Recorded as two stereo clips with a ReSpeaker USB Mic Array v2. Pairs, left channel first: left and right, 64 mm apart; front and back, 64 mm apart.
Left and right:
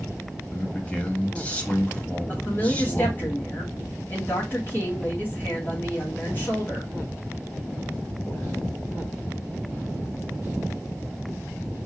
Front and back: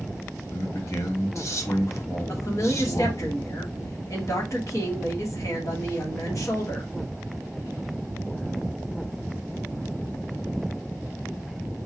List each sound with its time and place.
0.5 s a man speaking: 25° left, 1.4 m
2.3 s a woman speaking: 30° left, 2.5 m